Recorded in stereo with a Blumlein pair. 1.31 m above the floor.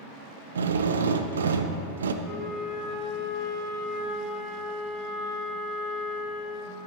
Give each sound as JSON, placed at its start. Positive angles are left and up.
{"t": 0.6, "sound": "a drill", "azimuth_deg": -65, "distance_m": 0.5}
{"t": 2.2, "sound": "a flute", "azimuth_deg": -5, "distance_m": 2.5}